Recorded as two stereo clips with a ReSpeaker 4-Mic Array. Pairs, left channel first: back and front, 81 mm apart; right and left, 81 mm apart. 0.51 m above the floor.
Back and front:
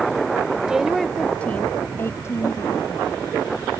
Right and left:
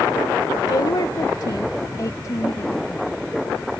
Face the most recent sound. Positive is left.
turn(degrees=-140)